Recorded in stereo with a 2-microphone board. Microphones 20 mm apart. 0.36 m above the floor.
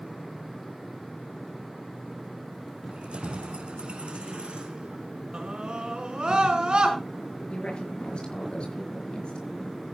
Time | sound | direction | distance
2.9 | keys jangling | 70° right (ahead or behind) | 2.5 m
5.3 | a scream | 50° right (ahead or behind) | 4 m
7.5 | a woman speaking | 55° left (ahead or behind) | 5 m